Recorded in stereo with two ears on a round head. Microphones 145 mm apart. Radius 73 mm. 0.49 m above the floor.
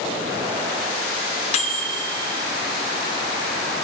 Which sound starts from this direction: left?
A microwave, at 1.5 s.